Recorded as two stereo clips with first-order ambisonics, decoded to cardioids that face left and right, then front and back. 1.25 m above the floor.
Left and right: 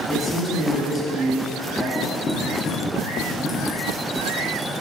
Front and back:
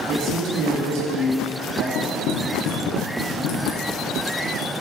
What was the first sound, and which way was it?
A man speaking, 165° left.